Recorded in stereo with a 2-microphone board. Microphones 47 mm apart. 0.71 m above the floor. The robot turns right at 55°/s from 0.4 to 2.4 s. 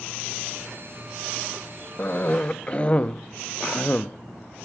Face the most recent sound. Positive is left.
turn(degrees=25)  # may be behind; listen again after turning